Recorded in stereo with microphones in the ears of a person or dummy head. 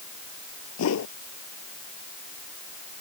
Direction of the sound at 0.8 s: 75° left (ahead or behind).